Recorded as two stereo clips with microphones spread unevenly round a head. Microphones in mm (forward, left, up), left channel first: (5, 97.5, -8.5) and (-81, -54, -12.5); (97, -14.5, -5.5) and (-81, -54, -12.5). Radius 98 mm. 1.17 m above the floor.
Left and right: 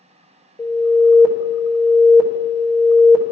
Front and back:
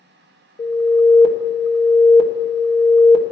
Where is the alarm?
5° left, 1.2 m.